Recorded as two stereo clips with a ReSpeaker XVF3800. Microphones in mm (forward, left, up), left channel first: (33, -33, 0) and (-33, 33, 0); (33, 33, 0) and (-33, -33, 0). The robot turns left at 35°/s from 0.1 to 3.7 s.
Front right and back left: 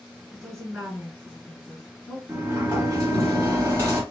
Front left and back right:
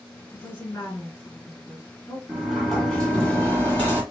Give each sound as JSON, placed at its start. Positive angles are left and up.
{"t": 0.3, "sound": "a woman speaking", "azimuth_deg": 80, "distance_m": 1.7}
{"t": 2.3, "sound": "a sliding door", "azimuth_deg": 150, "distance_m": 1.3}